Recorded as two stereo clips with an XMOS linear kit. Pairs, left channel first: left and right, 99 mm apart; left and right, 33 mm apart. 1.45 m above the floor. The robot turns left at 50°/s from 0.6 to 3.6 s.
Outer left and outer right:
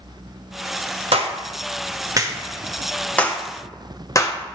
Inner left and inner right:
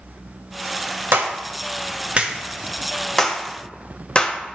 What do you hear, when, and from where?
1.1 s a clap: 75° right (ahead or behind), 0.8 m; by 4.6 s 35° left (ahead or behind), 0.8 m